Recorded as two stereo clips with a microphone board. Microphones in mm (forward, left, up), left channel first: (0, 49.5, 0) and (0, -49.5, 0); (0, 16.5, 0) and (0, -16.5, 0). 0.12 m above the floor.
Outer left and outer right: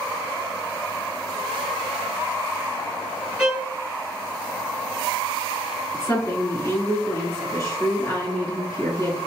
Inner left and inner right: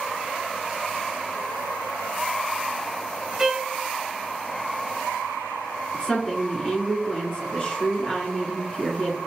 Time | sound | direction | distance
3.4 | a violin | 5° right (ahead or behind) | 1.3 m
5.9 | a woman speaking | 30° left (ahead or behind) | 1.6 m